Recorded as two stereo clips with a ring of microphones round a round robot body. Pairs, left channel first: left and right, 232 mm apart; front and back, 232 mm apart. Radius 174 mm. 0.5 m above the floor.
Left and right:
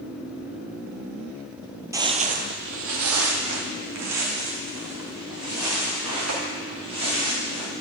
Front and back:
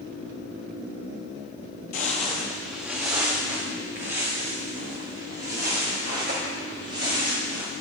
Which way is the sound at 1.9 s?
25° right.